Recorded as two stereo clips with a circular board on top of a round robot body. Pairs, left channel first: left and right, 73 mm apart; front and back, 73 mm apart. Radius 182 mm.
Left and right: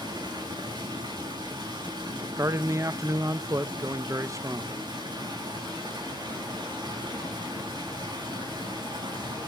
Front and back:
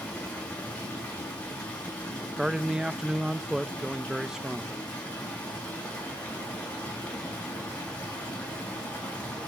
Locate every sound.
0.0 s running water: 75° right, 6.5 m
2.4 s a man speaking: 100° right, 0.6 m